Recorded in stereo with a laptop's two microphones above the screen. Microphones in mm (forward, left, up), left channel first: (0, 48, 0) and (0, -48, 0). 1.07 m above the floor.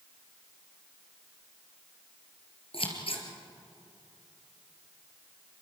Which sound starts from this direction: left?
Scissors, at 2.7 s.